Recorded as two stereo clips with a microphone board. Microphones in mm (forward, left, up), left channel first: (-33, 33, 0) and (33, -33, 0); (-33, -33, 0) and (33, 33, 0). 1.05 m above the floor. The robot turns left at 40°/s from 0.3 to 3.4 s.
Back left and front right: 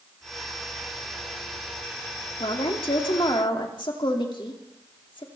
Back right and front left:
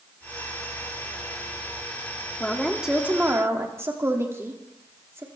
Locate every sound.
2.4 s a woman speaking: 145° left, 2.5 m; by 5.2 s 105° left, 2.5 m